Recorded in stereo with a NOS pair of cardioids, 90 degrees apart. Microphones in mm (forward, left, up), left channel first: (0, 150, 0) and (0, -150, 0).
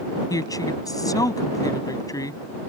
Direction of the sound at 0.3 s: 10° left.